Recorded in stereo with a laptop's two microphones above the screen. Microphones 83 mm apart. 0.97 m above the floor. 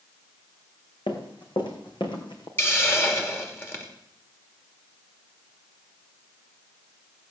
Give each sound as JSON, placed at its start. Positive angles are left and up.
{"t": 1.1, "sound": "running footsteps", "side_deg": 65, "distance_m": 3.0}
{"t": 2.6, "sound": "a hiss", "side_deg": 25, "distance_m": 2.5}